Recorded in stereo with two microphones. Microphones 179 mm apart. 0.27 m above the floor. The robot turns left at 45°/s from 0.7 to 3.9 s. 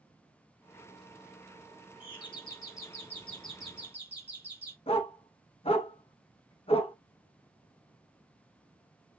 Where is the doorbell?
70° left, 1.9 m; by 4.8 s 15° right, 1.9 m.